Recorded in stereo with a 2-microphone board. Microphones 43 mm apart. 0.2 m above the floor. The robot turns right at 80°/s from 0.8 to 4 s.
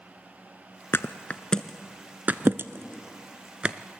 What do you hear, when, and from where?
0.9 s a thud: 65° left (ahead or behind), 0.5 m; by 3.8 s 20° right (ahead or behind), 0.5 m